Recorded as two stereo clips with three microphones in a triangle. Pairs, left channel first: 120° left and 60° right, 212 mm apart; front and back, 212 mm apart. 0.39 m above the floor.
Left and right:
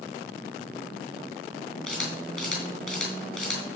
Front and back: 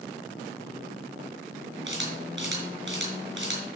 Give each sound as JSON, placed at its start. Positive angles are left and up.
{"t": 1.9, "sound": "a camera shutter", "azimuth_deg": -155, "distance_m": 5.5}